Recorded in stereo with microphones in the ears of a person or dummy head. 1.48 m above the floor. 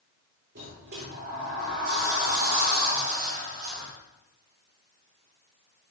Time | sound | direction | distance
0.6 | a sliding door | 55° right (ahead or behind) | 3 m